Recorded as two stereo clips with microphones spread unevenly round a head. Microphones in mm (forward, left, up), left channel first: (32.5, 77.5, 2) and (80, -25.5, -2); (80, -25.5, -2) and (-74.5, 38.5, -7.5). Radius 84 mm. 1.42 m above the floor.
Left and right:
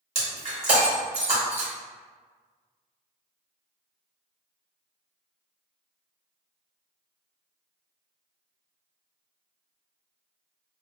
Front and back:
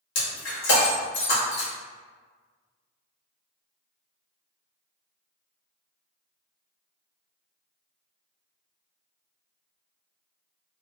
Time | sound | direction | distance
0.1 | breaking glass | 40° right | 1.5 m